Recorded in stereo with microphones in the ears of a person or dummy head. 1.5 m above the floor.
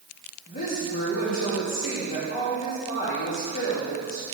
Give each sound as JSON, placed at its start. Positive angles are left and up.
{"t": 0.5, "sound": "a woman speaking", "side_deg": 45, "distance_m": 3.0}